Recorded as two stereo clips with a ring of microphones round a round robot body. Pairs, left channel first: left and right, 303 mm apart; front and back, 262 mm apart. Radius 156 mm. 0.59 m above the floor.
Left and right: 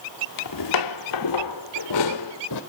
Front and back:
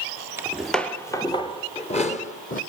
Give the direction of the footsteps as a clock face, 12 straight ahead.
9 o'clock.